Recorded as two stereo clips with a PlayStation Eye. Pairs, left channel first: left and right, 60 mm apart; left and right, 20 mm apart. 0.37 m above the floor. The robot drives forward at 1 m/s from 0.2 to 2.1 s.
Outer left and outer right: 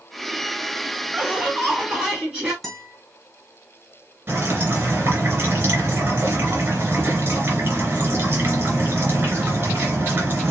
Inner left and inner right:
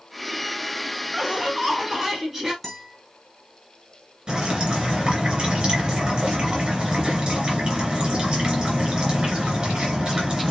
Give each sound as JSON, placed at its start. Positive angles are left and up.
{"t": 1.1, "sound": "laughter", "side_deg": -20, "distance_m": 2.5}
{"t": 2.6, "sound": "a guitar", "side_deg": 5, "distance_m": 3.0}
{"t": 4.3, "sound": "dripping", "side_deg": -35, "distance_m": 2.5}